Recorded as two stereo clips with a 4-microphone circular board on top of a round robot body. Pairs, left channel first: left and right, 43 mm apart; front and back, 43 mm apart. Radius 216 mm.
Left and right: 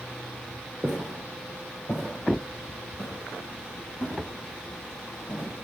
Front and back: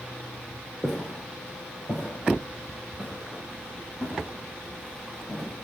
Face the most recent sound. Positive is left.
turn(degrees=70)